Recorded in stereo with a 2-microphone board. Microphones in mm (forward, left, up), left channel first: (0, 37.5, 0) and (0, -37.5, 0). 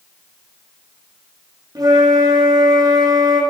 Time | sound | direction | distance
1.8 | a flute | 55° right (ahead or behind) | 8.5 m